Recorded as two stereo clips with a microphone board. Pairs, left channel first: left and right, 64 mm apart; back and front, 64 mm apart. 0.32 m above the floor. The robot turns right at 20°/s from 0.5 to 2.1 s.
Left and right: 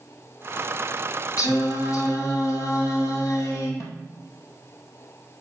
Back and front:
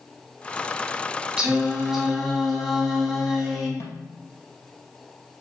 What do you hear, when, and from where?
1.4 s singing: 75° left, 2.5 m; by 3.7 s 90° left, 2.5 m
3.8 s a snare drum: 135° left, 2.5 m